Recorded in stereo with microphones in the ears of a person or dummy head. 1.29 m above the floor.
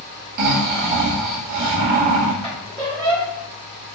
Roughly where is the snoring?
Right.